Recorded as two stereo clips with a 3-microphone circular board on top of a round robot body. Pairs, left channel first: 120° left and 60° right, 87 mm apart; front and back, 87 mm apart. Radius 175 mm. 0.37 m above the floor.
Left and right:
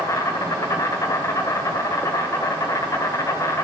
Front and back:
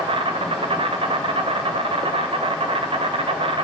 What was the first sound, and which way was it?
An insect, 175° left.